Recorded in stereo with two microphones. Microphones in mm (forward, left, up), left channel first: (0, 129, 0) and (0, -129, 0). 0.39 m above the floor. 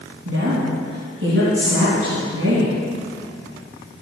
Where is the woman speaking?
55° right (ahead or behind), 3.5 m.